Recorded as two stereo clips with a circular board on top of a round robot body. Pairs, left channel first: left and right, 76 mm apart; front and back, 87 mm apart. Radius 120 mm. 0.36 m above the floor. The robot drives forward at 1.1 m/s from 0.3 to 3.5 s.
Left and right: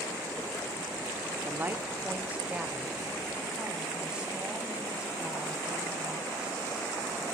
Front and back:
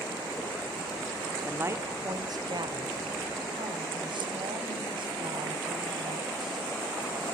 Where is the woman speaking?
120° right, 1.0 m; by 6.6 s 170° right, 2.5 m.